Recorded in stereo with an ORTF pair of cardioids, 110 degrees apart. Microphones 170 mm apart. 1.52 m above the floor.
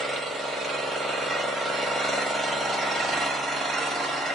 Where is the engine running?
Straight ahead, 0.8 m.